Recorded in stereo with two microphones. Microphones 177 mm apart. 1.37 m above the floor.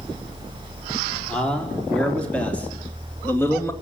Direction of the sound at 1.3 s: 5° left (ahead or behind).